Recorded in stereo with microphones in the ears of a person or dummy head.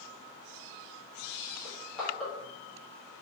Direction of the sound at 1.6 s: 5° left (ahead or behind).